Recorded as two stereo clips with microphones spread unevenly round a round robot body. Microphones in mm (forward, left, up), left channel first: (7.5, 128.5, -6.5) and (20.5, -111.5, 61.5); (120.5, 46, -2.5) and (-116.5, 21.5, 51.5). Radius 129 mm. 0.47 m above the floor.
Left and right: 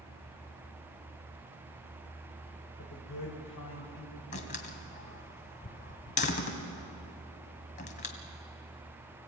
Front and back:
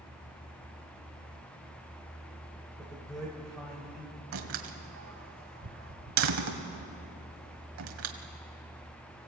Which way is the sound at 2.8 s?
90° left.